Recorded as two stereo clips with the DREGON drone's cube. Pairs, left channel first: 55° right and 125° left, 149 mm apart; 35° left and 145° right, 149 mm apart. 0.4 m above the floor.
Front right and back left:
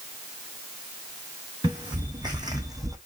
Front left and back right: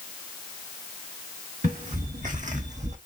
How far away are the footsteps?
About 1.8 m.